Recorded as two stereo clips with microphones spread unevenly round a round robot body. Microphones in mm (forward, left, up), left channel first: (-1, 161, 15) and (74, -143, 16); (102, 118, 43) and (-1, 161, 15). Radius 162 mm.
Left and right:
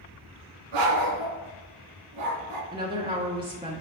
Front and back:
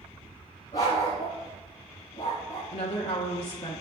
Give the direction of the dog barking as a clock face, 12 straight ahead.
3 o'clock.